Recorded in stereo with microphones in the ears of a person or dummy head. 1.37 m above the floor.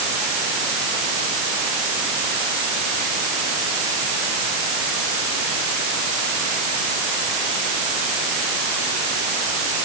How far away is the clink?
No clink in this recording.